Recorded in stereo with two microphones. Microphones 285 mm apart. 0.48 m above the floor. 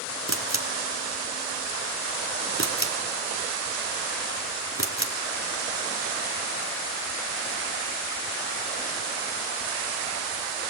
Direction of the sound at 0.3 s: 50° left (ahead or behind).